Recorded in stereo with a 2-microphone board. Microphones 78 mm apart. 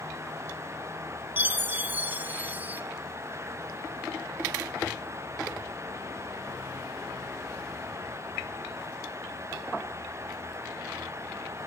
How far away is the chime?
About 0.9 m.